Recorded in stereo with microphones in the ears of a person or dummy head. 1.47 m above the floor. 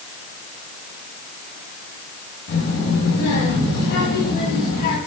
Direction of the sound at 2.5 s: 75° left (ahead or behind).